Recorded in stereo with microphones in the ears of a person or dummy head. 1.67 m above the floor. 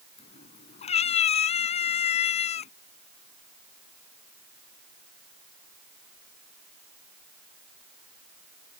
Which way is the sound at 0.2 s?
45° left (ahead or behind).